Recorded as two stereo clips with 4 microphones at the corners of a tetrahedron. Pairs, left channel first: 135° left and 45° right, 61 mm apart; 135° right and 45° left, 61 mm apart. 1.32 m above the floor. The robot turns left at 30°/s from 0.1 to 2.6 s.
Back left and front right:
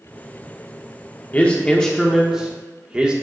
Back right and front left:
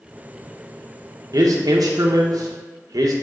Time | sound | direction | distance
1.3 | a man speaking | 70° left | 1.0 m